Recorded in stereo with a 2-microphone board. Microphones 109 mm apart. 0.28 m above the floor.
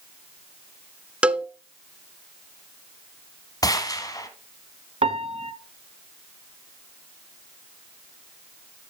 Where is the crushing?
I don't hear crushing.